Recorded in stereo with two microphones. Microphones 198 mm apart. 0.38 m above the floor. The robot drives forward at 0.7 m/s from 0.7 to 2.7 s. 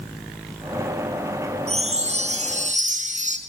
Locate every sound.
1.7 s a chime: 30° right (ahead or behind), 3.5 m; by 3.4 s 40° right (ahead or behind), 3 m